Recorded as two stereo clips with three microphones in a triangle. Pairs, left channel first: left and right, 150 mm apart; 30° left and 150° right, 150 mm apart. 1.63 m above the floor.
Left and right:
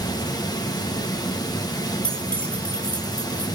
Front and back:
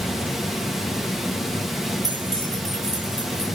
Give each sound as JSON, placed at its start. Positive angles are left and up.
{"t": 0.0, "sound": "running water", "azimuth_deg": 125, "distance_m": 1.0}
{"t": 2.0, "sound": "keys jangling", "azimuth_deg": 170, "distance_m": 3.5}